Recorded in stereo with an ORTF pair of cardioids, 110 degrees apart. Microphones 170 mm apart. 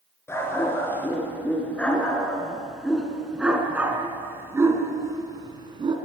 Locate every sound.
0.3 s a dog barking: 15° left, 5.5 m; by 6.0 s 30° right, 4 m